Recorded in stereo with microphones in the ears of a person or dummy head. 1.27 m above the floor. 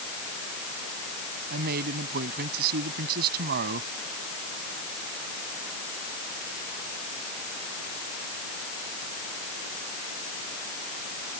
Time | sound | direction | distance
1.5 | a man speaking | 55° right (ahead or behind) | ?